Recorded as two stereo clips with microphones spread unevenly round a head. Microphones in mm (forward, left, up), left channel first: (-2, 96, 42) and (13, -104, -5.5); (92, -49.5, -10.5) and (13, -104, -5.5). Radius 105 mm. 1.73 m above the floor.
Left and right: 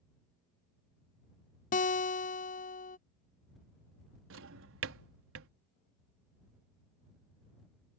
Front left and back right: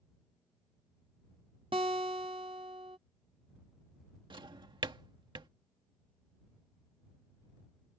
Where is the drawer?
115° right.